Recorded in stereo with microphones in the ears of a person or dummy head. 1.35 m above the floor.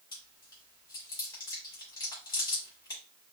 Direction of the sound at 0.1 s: 20° left (ahead or behind).